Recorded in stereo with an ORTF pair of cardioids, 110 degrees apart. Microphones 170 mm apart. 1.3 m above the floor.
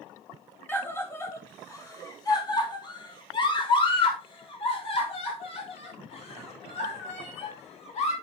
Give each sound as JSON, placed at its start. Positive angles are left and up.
{"t": 0.7, "sound": "a scream", "azimuth_deg": 15, "distance_m": 2.5}